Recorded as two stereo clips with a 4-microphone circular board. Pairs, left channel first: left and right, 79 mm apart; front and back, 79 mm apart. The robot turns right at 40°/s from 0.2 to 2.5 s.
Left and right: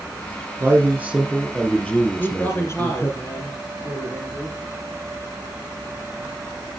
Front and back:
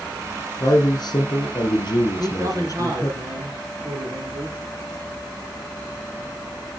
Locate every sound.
0.6 s a man speaking: 35° right, 3 m; by 3.2 s 40° left, 3 m
2.2 s a man speaking: 140° left, 2.5 m; by 4.6 s 155° left, 2.5 m